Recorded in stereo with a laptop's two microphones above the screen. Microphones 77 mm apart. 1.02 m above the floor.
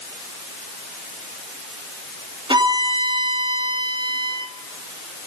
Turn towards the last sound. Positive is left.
turn(degrees=-90)